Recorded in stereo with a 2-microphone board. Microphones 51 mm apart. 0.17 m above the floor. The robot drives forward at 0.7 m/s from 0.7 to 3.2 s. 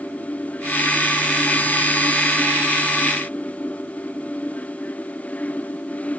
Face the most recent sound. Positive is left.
No sound to turn to.